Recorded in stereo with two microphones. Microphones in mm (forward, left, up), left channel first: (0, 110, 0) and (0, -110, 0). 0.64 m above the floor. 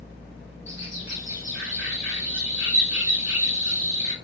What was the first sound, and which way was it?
A bird, 60° right (ahead or behind).